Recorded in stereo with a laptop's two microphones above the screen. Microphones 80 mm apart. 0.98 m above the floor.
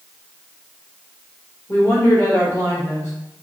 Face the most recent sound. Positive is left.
turn(degrees=30)  # may be behind; listen again after turning